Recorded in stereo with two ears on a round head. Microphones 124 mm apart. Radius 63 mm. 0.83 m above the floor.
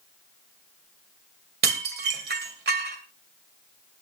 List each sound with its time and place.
1.6 s dishes clattering: 75° right (ahead or behind), 2.5 m